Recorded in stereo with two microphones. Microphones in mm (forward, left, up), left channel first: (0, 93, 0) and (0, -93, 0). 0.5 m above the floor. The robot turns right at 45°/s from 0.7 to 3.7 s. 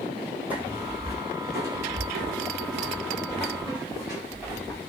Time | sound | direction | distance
0.5 | footsteps | 10° right (ahead or behind) | 1.4 m